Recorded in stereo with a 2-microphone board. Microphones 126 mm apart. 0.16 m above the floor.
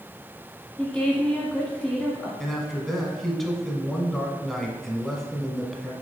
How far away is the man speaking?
About 1.1 m.